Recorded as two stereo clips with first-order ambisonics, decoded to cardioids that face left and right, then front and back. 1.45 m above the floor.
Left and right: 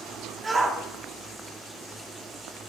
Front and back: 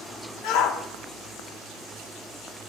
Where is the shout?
20° right, 1.3 m.